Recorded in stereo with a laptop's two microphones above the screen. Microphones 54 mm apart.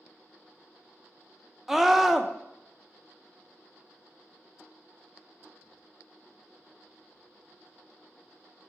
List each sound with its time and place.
1.7 s a scream: 5° right (ahead or behind), 0.6 m